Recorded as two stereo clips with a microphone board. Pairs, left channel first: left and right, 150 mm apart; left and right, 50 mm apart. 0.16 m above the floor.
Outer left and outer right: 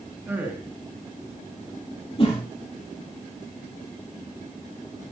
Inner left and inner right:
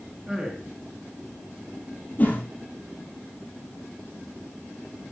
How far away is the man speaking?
About 2 m.